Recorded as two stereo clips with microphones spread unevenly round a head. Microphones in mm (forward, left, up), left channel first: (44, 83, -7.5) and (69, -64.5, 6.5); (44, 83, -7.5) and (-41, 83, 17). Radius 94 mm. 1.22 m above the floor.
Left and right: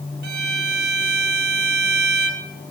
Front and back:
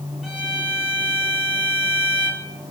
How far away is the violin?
About 1.4 m.